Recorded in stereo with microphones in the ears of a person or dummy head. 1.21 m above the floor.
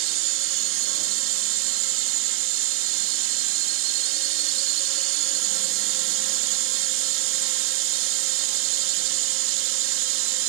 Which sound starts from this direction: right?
A drone, at 0.0 s.